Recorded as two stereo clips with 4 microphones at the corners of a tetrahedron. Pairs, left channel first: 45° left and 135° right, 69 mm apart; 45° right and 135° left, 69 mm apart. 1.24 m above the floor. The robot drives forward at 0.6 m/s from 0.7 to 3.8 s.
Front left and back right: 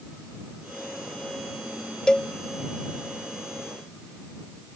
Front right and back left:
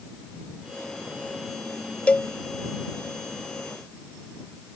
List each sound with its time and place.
2.1 s a cowbell: 5° right; by 2.3 s 10° right